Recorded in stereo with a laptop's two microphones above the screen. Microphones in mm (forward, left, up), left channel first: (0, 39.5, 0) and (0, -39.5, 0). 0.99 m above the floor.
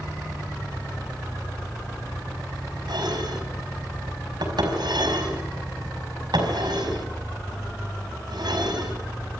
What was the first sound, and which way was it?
Dishes clattering, 70° right (ahead or behind).